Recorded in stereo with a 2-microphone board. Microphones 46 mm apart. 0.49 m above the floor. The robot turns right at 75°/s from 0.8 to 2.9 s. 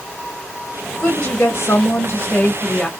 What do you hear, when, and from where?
1.0 s a woman speaking: 15° left, 1.2 m; by 2.9 s 155° left, 1.2 m